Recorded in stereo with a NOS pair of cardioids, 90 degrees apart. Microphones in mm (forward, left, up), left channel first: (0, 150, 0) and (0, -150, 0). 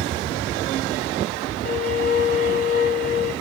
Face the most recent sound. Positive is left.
turn(degrees=30)